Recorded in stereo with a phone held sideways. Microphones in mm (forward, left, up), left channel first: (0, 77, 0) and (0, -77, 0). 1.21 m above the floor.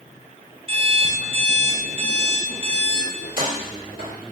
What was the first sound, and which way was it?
An alarm clock, 35° right (ahead or behind).